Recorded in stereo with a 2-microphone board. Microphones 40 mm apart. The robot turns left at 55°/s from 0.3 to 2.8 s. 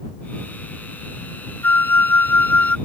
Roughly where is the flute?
Left.